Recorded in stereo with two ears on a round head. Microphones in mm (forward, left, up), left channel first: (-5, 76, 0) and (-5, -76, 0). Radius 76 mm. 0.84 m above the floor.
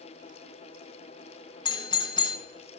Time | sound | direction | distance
1.6 | a doorbell | 25° left (ahead or behind) | 0.7 m